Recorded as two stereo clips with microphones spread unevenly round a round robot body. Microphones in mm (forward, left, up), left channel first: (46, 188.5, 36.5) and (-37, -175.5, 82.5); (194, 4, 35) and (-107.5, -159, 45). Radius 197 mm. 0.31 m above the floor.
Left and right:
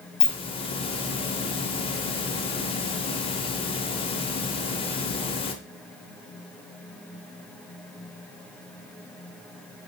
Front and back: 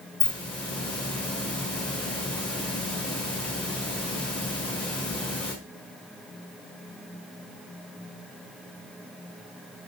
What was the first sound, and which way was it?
A hiss, 110° left.